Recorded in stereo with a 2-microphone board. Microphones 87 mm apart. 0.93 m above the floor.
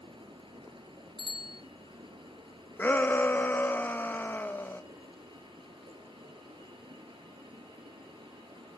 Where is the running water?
75° right (ahead or behind), 4 m.